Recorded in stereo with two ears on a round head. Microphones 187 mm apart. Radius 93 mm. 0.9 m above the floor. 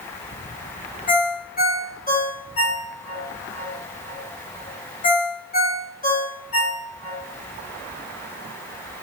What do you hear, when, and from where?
1.1 s a ringtone: 40° left (ahead or behind), 1.5 m